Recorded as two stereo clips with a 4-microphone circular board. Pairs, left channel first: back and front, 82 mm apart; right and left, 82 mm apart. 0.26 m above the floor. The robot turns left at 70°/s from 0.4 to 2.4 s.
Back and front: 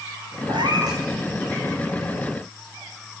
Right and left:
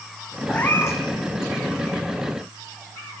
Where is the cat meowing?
10° right, 4.5 m; by 1.0 s 45° right, 4.5 m.